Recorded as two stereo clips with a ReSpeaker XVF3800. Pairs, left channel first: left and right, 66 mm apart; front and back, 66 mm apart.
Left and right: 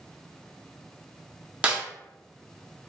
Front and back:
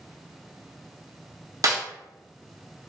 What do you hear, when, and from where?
1.6 s a snare drum: 160° right, 0.5 m